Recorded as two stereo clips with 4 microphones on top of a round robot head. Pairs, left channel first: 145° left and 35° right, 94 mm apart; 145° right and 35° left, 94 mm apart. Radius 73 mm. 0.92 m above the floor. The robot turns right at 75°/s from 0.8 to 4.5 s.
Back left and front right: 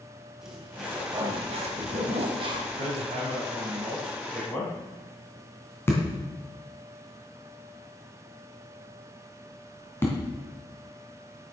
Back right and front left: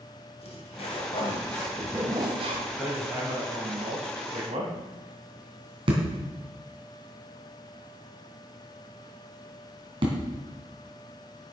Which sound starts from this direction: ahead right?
Hammering, at 2.8 s.